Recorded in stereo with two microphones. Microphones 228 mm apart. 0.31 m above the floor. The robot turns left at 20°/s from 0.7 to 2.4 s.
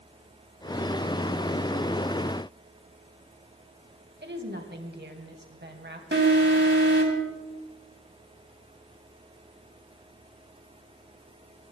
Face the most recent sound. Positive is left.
turn(degrees=-55)  # may be behind; listen again after turning